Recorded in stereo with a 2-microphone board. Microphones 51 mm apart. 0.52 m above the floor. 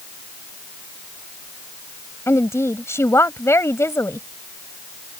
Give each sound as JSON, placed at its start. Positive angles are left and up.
{"t": 2.3, "sound": "a woman speaking", "side_deg": 65}